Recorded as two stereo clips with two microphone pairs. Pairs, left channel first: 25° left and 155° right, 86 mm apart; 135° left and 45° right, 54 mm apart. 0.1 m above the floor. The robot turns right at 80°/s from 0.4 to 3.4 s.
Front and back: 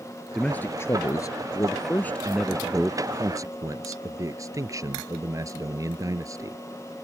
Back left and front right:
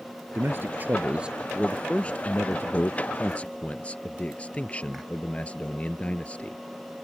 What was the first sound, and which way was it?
A man speaking, 50° right.